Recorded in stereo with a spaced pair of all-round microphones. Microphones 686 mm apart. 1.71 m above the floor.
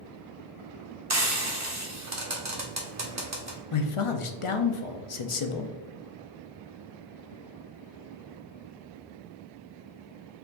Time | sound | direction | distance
1.1 | frying | 25° right (ahead or behind) | 0.8 m
3.7 | a man speaking | 50° left (ahead or behind) | 0.6 m